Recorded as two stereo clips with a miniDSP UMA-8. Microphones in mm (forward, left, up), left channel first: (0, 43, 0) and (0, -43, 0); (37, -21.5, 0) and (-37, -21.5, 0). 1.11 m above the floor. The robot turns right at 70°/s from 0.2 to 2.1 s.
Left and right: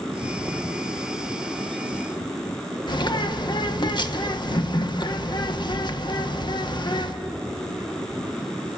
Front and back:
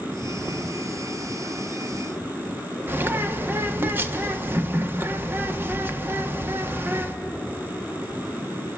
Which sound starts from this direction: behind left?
A bird, at 2.9 s.